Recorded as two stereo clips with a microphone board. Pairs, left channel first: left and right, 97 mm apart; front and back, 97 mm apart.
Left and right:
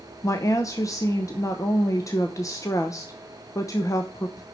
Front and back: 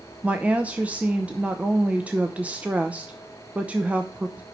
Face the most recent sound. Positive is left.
turn(degrees=115)